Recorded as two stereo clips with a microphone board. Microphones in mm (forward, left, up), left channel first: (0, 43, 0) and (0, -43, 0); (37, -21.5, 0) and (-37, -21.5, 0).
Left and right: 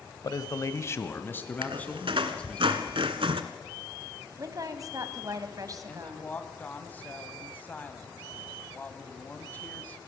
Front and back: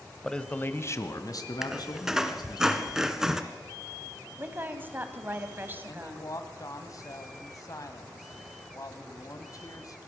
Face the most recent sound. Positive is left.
turn(degrees=25)